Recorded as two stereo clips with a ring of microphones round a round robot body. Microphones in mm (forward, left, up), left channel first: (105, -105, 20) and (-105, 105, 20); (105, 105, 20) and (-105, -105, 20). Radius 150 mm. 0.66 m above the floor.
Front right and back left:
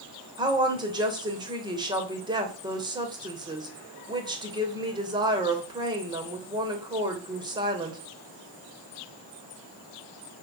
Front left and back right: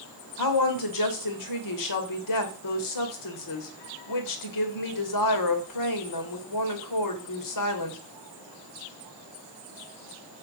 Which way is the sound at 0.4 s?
60° left.